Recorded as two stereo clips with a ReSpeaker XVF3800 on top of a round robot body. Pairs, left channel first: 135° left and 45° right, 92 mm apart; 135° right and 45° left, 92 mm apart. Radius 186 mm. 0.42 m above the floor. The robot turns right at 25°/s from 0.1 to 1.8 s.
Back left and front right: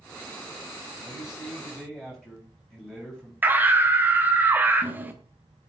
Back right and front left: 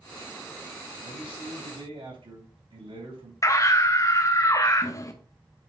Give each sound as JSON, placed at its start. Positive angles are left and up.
{"t": 1.0, "sound": "a man speaking", "azimuth_deg": 30, "distance_m": 3.5}
{"t": 3.4, "sound": "a scream", "azimuth_deg": -105, "distance_m": 1.0}